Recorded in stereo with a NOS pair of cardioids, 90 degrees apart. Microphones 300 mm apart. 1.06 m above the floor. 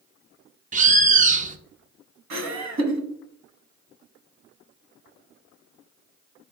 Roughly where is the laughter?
Ahead right.